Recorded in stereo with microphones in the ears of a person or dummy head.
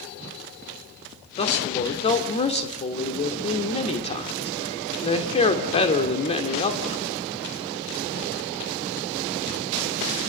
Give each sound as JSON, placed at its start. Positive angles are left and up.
{"t": 1.4, "sound": "a man speaking", "side_deg": 35, "distance_m": 2.5}